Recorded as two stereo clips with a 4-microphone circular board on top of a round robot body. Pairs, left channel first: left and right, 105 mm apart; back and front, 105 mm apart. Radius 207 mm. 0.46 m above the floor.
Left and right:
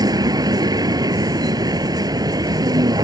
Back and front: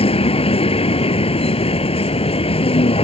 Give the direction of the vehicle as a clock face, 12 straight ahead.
5 o'clock.